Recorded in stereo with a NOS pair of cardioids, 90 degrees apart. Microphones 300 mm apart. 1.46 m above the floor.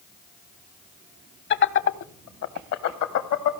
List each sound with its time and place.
1.5 s laughter: 35° left, 1.1 m; by 3.6 s 65° left, 1.9 m